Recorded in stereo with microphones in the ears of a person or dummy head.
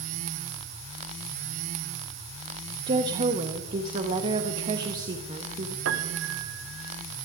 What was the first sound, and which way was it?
A woman speaking, 30° right (ahead or behind).